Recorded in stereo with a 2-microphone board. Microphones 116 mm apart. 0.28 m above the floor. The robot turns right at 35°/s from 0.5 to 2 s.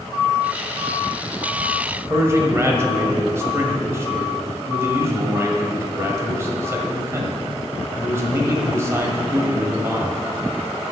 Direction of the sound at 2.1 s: 25° right (ahead or behind).